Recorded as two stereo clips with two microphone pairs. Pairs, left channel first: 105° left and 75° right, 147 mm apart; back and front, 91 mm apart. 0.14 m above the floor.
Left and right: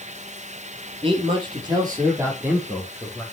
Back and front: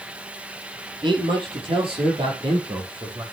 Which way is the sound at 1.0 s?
25° right.